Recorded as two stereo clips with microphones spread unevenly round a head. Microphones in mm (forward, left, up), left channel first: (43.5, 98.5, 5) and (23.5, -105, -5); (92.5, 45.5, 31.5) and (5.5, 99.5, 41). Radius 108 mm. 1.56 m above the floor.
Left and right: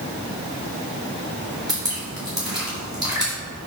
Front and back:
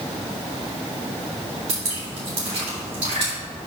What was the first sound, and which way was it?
Dripping, 170° right.